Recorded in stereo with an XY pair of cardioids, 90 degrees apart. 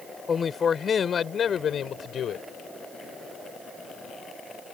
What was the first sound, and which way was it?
A man speaking, 40° left.